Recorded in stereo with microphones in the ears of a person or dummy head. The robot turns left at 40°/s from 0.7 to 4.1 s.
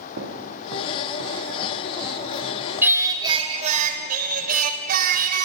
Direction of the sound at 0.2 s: 65° right (ahead or behind).